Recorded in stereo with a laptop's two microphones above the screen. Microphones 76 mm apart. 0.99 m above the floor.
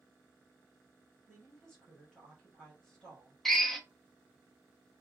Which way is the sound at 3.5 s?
5° left (ahead or behind).